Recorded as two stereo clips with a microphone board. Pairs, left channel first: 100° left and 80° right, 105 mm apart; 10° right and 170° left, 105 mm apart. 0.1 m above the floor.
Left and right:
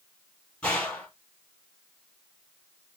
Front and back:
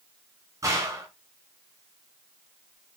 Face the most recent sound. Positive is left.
turn(degrees=165)